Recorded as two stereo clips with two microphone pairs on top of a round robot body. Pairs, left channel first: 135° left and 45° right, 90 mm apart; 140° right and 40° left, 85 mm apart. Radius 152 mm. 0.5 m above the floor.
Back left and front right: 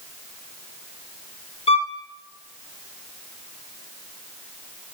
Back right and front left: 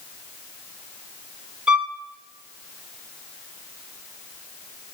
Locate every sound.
1.7 s a violin: 125° left, 0.6 m